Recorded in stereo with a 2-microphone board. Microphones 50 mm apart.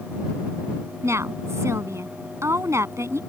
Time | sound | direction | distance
1.0 | a woman speaking | 70° right (ahead or behind) | ?